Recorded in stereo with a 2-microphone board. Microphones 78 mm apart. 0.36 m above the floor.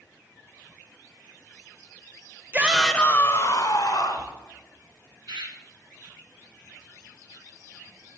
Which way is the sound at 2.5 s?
25° right (ahead or behind).